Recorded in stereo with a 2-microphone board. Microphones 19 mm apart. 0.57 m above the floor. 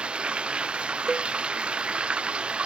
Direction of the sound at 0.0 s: 70° right (ahead or behind).